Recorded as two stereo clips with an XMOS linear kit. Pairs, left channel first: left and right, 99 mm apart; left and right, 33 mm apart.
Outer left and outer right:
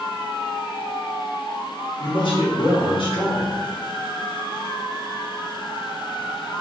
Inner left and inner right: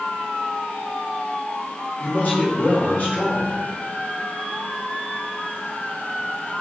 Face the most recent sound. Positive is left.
turn(degrees=65)  # may be behind; listen again after turning